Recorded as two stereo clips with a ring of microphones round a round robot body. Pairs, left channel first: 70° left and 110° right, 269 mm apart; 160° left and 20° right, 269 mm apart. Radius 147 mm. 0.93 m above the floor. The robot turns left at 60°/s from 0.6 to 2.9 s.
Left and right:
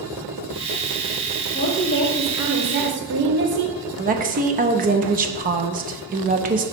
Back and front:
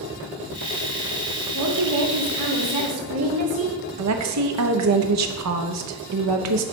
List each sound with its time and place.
1.5 s a woman speaking: 20° left, 1.8 m; by 3.8 s 60° right, 1.8 m
4.0 s a woman speaking: 50° right, 0.9 m